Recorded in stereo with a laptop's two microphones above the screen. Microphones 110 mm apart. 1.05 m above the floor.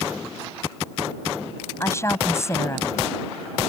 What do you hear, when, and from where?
1.8 s a woman speaking: 25° left (ahead or behind)